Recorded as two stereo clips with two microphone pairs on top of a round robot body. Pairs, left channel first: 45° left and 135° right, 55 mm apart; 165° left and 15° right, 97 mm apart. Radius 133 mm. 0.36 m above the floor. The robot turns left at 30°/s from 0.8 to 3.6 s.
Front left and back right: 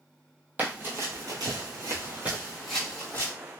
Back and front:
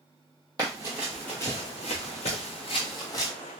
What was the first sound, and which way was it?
Running footsteps, 75° right.